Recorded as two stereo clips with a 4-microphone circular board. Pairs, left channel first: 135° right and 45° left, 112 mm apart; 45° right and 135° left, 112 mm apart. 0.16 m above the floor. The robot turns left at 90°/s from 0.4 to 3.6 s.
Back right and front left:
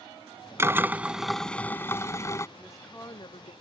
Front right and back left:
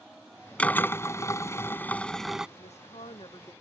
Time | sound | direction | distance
0.6 | a drill | 20° left | ?
2.6 | a woman speaking | 30° right | ?